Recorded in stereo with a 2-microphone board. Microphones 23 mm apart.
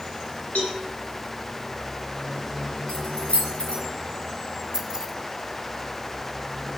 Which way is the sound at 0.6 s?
85° left.